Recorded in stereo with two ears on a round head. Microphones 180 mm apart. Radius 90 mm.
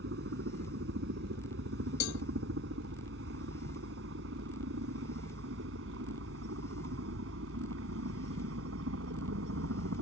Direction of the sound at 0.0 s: 60° right (ahead or behind).